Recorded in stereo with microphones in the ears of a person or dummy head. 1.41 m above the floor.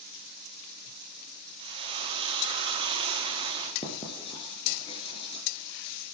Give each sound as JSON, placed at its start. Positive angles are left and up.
{"t": 1.6, "sound": "frying", "side_deg": -25, "distance_m": 1.4}
{"t": 3.8, "sound": "writing", "side_deg": 30, "distance_m": 3.0}